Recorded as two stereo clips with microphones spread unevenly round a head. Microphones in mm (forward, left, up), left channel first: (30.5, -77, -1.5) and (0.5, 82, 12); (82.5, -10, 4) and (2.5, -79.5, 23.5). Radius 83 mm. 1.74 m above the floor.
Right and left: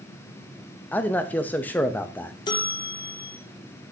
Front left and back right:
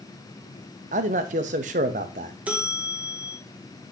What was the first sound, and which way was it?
A man speaking, 160° right.